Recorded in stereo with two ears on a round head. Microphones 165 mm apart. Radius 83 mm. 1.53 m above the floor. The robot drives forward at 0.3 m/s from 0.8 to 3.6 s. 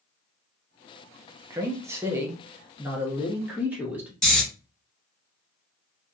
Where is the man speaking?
15° right (ahead or behind), 0.6 m; by 4.1 s 10° right (ahead or behind), 1.1 m.